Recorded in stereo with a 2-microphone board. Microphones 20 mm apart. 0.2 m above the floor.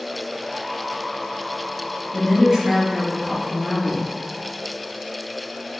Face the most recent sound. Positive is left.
turn(degrees=-25)  # may be behind; listen again after turning